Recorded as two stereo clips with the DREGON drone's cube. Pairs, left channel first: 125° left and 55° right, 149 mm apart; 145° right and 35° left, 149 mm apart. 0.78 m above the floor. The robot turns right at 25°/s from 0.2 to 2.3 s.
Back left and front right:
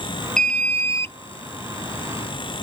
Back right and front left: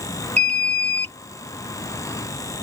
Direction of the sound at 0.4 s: 40° left.